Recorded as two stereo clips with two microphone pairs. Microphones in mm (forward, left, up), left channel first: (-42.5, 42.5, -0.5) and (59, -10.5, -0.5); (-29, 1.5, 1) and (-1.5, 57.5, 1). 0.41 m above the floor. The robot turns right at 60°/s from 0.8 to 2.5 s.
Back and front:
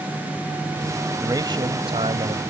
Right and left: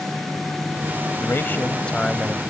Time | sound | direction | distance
1.2 | a man speaking | 85° right | ?